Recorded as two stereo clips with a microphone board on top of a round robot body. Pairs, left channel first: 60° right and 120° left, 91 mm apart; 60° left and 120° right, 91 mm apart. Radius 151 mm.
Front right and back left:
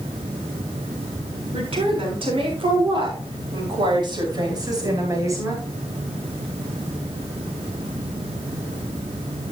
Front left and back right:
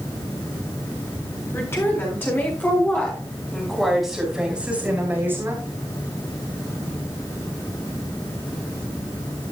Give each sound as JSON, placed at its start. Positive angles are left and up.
{"t": 1.5, "sound": "a woman speaking", "azimuth_deg": 120, "distance_m": 7.0}